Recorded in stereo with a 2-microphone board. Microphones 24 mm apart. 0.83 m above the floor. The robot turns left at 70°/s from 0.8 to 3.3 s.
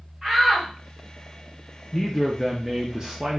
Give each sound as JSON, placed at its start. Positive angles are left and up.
{"t": 0.2, "sound": "a shout", "side_deg": -5, "distance_m": 1.9}
{"t": 1.9, "sound": "a man speaking", "azimuth_deg": 30, "distance_m": 0.6}